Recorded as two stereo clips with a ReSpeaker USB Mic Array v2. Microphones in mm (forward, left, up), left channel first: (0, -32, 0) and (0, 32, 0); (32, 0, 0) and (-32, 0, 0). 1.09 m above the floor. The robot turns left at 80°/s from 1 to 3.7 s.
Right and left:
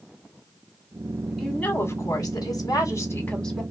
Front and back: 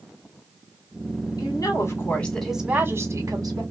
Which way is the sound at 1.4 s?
5° right.